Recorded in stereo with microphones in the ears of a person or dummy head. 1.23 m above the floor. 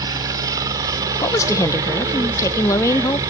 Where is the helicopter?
20° right (ahead or behind).